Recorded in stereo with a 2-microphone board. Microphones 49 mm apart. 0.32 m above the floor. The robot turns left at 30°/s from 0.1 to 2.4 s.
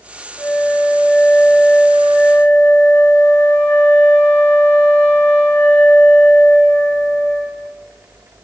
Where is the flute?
145° left, 3 m; by 7.8 s 85° left, 3 m.